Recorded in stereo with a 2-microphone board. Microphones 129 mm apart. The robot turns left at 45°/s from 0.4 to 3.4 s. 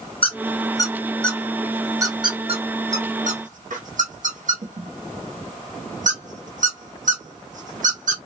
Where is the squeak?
45° left (ahead or behind), 0.8 m; by 8.2 s 90° right, 0.8 m.